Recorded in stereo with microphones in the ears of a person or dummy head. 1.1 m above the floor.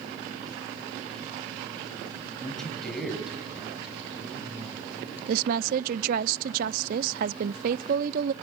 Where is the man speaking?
5° left (ahead or behind), 6.5 m; by 5.2 s 15° right (ahead or behind), 7.5 m.